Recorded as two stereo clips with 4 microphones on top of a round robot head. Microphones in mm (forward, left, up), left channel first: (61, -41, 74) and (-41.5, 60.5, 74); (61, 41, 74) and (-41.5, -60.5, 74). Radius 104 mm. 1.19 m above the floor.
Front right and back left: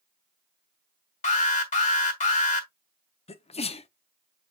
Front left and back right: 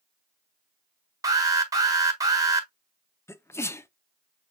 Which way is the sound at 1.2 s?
70° right.